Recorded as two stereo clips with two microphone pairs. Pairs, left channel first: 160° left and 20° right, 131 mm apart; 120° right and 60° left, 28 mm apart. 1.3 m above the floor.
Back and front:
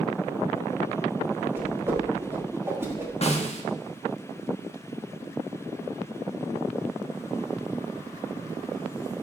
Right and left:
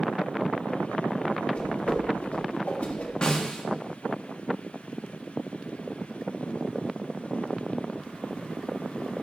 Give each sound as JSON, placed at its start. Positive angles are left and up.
{"t": 1.6, "sound": "a whoosh", "azimuth_deg": -90, "distance_m": 1.2}
{"t": 3.2, "sound": "a snare drum", "azimuth_deg": -170, "distance_m": 1.1}